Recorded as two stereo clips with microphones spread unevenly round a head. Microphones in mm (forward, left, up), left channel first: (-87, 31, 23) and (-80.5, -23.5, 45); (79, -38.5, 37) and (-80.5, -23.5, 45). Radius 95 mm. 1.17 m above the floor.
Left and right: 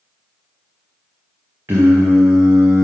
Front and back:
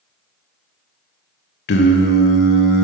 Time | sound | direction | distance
1.7 | singing | 10° right | 0.8 m